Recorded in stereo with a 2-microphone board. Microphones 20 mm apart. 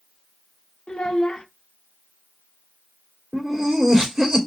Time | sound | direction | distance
0.9 | a child speaking | 75° left (ahead or behind) | 0.6 m
3.3 | laughter | 40° right (ahead or behind) | 2 m